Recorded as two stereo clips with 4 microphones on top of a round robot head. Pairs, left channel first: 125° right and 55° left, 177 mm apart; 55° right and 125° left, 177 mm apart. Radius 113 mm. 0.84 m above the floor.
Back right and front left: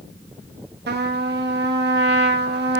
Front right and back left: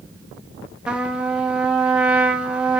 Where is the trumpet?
40° left, 1.6 m.